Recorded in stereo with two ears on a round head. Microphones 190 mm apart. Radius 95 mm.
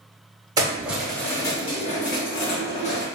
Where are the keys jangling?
20° right (ahead or behind), 0.8 m; by 3.0 s 55° left (ahead or behind), 1.3 m.